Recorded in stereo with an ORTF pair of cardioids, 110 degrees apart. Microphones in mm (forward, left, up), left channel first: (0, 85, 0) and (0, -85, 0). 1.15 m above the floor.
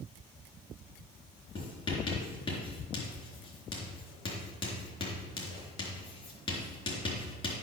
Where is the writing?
30° left, 4 m.